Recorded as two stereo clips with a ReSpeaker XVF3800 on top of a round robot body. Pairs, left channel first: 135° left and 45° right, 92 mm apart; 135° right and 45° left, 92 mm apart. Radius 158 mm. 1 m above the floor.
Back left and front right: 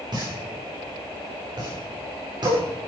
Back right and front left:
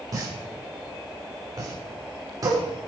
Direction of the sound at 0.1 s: 5° right.